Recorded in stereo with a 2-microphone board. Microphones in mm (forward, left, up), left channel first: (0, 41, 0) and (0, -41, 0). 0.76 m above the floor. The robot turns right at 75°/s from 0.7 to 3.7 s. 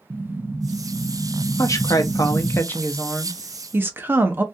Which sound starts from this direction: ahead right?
An explosion, at 0.1 s.